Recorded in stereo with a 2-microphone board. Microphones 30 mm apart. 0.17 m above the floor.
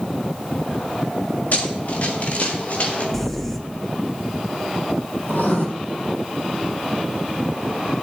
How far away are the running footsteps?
About 3 m.